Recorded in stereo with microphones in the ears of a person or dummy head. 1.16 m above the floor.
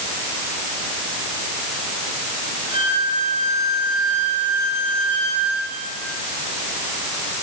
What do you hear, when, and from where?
2.7 s a violin: 35° right (ahead or behind), 8.5 m